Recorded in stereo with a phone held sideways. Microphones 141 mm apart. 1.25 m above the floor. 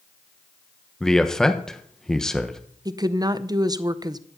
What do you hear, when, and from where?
1.0 s a man speaking: 5° left (ahead or behind), 1.2 m
2.9 s a woman speaking: 30° right (ahead or behind), 0.6 m